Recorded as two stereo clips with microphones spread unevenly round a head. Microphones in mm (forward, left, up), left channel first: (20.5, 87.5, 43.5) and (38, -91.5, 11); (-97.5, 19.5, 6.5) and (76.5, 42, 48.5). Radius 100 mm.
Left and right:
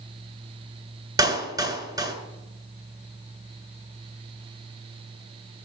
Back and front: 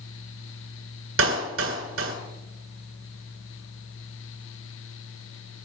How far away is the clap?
About 9.5 m.